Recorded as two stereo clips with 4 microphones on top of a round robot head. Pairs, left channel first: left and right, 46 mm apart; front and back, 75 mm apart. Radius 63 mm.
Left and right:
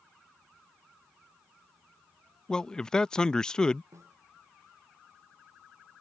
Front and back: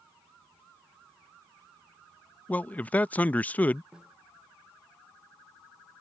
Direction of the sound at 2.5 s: 35° left.